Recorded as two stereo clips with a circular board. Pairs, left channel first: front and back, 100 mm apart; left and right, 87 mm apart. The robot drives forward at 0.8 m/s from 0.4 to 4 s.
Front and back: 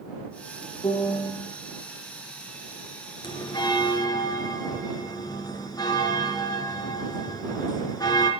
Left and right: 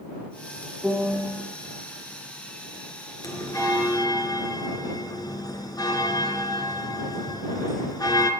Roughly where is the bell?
Ahead left.